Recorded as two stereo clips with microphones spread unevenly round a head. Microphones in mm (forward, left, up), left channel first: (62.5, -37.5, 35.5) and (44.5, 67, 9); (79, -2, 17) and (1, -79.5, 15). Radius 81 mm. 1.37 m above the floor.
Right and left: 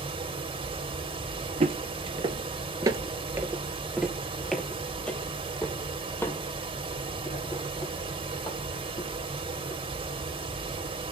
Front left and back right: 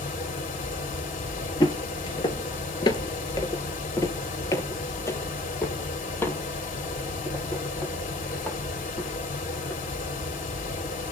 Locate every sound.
0.0 s a fan: 60° left, 3.5 m
1.6 s footsteps: 85° left, 1.8 m; by 9.8 s 35° right, 5 m